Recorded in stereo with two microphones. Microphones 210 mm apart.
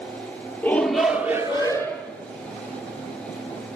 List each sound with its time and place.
0.6 s a shout: 10° left (ahead or behind), 0.9 m; by 2.1 s 20° right (ahead or behind), 1.4 m